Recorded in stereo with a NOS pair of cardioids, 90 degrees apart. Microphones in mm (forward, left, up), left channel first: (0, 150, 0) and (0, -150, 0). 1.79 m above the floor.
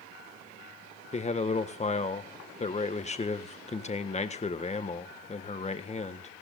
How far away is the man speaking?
About 1.6 m.